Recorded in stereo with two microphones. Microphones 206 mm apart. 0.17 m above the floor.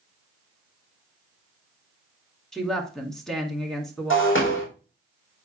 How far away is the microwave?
No microwave in this recording.